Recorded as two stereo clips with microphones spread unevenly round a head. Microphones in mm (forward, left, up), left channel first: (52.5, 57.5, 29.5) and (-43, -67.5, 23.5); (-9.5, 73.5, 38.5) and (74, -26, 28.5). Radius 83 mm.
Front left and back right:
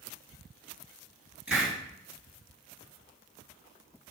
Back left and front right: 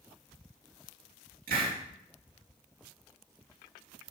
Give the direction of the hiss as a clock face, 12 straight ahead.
1 o'clock.